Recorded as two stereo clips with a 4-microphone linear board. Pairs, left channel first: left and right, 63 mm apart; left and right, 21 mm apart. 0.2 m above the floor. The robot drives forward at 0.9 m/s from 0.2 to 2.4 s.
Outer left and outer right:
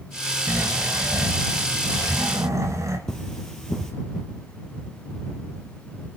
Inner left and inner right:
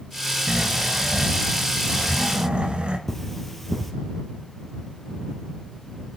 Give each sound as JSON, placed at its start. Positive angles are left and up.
{"t": 0.5, "sound": "snoring", "side_deg": -45, "distance_m": 2.5}
{"t": 3.1, "sound": "cutlery clinking", "side_deg": 10, "distance_m": 2.5}